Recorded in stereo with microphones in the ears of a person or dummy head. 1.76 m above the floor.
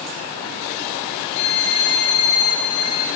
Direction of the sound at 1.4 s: 70° left (ahead or behind).